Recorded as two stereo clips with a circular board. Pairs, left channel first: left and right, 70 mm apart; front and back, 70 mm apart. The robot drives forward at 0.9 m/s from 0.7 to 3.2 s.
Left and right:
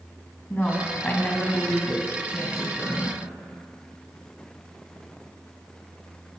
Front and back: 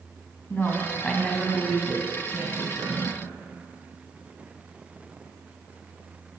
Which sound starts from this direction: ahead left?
A woman speaking, at 0.5 s.